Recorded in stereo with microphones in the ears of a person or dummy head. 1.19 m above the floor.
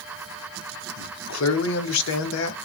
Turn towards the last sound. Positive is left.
turn(degrees=80)